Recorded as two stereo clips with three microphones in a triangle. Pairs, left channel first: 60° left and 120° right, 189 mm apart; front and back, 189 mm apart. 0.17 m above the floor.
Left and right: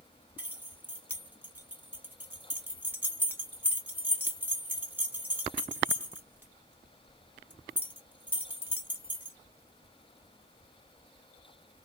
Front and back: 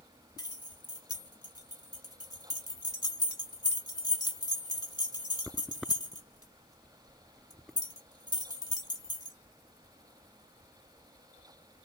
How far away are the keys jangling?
About 0.8 m.